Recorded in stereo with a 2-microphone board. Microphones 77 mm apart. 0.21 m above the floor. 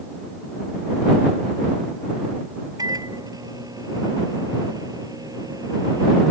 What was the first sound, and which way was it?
A microwave, 55° right (ahead or behind).